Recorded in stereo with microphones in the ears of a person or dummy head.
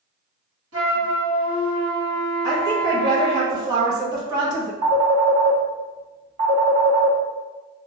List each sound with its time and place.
0.7 s a flute: 75° right (ahead or behind), 1.6 m
2.4 s a woman speaking: 20° right (ahead or behind), 1.0 m
4.8 s a phone ringing: 40° right (ahead or behind), 1.9 m